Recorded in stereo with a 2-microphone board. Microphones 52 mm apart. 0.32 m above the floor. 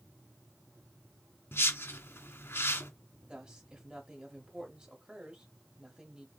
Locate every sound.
1.5 s a whoosh: 55° left (ahead or behind), 2 m
3.3 s a woman speaking: 15° right (ahead or behind), 1.2 m